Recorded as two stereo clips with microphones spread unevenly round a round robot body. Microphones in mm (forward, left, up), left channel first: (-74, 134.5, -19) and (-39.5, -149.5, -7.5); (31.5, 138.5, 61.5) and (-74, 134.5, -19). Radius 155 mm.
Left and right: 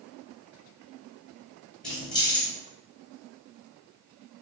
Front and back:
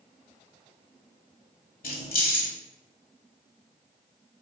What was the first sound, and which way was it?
Keys jangling, 10° left.